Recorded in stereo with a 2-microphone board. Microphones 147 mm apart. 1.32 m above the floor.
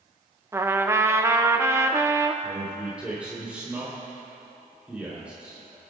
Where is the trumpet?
15° right (ahead or behind), 0.7 m.